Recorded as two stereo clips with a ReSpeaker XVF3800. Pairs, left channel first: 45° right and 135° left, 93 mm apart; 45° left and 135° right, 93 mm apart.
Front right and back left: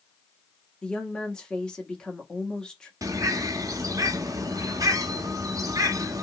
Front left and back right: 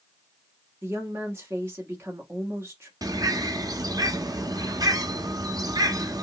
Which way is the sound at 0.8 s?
115° right.